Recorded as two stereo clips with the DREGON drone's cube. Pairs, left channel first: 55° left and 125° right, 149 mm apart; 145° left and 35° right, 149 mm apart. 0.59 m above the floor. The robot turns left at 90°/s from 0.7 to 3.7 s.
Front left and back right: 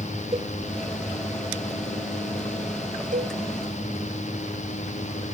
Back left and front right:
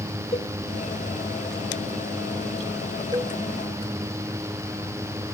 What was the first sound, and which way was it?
A cowbell, 175° right.